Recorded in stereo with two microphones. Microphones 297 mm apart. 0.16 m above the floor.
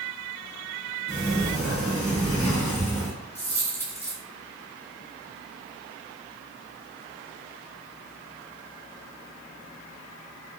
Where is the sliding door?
15° left (ahead or behind), 1.9 m.